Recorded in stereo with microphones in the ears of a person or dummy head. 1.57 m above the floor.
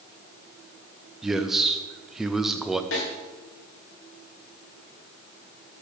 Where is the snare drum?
85° left, 2.5 m.